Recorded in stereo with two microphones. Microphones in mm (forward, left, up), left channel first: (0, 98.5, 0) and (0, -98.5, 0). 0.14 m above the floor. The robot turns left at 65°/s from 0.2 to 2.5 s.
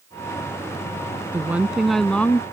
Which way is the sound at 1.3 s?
10° right (ahead or behind).